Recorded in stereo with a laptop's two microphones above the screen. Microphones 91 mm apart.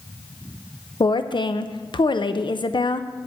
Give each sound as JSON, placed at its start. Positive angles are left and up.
{"t": 1.0, "sound": "a woman speaking", "side_deg": 60, "distance_m": 0.5}